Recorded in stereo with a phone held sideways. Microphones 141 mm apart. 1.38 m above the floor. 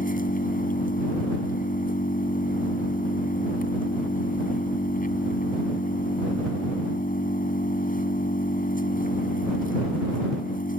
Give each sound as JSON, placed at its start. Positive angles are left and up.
{"t": 0.0, "sound": "an engine running", "side_deg": 80}